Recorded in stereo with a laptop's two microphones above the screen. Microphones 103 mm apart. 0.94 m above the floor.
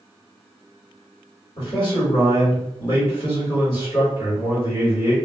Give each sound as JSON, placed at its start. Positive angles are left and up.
{"t": 1.6, "sound": "a man speaking", "side_deg": 55, "distance_m": 1.9}